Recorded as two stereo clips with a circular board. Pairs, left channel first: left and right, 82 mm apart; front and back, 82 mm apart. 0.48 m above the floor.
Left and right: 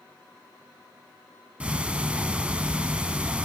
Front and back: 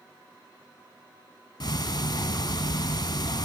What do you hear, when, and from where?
1.6 s ticking: 15° right, 0.5 m